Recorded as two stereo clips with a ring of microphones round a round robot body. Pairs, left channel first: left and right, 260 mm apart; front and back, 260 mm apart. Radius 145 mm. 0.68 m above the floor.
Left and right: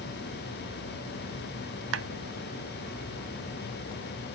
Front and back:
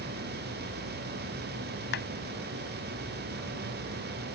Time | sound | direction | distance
1.9 | a clap | 55° right | ?